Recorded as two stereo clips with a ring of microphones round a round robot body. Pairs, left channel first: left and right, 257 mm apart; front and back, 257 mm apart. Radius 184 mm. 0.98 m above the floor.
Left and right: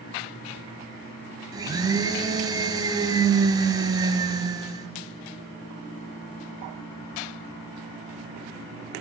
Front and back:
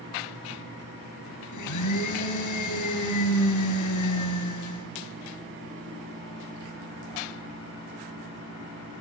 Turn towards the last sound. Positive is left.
turn(degrees=-15)